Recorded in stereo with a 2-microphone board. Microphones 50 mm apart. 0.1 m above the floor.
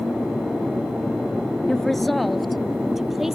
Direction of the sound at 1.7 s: 10° left (ahead or behind).